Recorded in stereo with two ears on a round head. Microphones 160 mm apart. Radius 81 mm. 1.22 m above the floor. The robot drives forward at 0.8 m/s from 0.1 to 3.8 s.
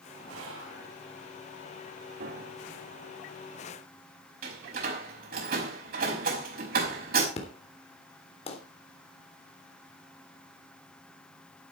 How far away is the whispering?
About 7 m.